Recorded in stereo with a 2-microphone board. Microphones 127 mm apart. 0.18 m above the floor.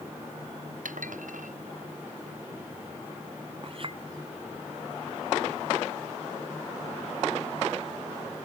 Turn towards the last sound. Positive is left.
turn(degrees=-45)  # may be behind; listen again after turning